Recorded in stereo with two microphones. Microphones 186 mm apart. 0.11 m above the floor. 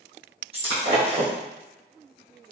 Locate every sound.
0.5 s breaking glass: 30° right (ahead or behind), 1.5 m